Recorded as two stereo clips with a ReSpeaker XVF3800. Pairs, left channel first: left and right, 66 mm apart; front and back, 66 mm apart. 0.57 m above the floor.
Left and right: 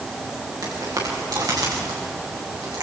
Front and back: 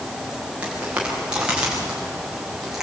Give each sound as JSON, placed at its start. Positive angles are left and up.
{"t": 0.6, "sound": "footsteps", "azimuth_deg": -110, "distance_m": 7.0}